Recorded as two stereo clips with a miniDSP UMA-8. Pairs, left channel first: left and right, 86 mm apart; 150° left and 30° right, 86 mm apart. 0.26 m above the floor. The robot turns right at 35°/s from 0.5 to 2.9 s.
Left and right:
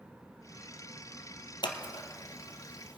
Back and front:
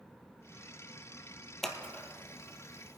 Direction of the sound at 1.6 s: 60° left.